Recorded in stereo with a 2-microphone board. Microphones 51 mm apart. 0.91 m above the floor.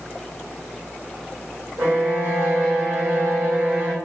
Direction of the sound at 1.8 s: 80° right.